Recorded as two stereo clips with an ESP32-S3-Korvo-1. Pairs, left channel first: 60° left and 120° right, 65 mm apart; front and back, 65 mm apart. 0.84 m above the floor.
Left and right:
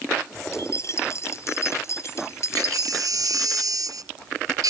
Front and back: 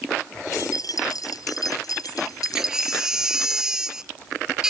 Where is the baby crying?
100° right.